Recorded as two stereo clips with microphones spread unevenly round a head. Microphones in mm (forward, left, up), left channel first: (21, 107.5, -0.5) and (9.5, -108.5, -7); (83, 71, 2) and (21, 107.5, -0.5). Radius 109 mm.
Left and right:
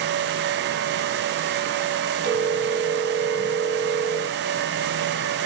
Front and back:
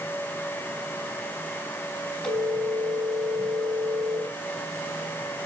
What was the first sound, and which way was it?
A phone ringing, 65° right.